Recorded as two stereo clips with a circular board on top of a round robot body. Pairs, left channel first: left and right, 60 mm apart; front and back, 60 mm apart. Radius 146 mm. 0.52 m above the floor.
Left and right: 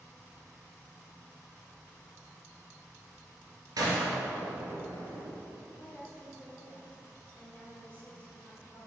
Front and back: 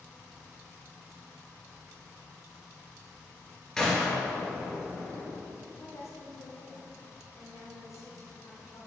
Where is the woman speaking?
25° left, 2.5 m.